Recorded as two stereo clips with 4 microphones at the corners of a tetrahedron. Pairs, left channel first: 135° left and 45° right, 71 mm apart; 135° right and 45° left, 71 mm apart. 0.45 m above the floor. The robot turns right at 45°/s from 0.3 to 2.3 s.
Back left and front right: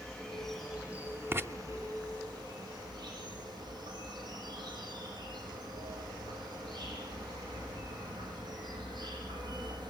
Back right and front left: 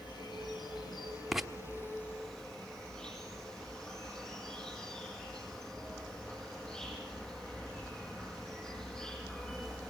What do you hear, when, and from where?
0.0 s an insect: 145° right, 6.5 m; by 9.9 s 55° right, 6.5 m
1.3 s writing: 40° right, 1.1 m; by 1.5 s 35° right, 1.1 m